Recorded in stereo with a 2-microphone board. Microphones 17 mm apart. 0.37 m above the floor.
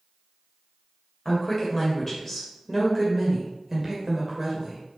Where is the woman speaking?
30° left (ahead or behind), 1.8 m; by 4.8 s 35° right (ahead or behind), 1.7 m.